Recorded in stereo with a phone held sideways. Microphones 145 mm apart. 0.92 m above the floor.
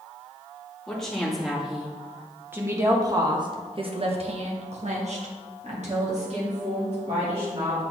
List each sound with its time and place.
0.9 s a woman speaking: 5° left (ahead or behind), 2.0 m; by 7.8 s 50° right (ahead or behind), 2.5 m